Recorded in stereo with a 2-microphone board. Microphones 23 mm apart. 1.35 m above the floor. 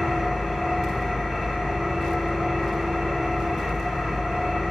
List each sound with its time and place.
0.0 s an engine running: 15° left (ahead or behind), 1.3 m